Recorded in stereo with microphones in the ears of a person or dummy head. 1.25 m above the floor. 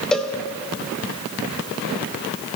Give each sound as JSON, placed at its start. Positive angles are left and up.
{"t": 0.1, "sound": "a cowbell", "side_deg": 5, "distance_m": 0.5}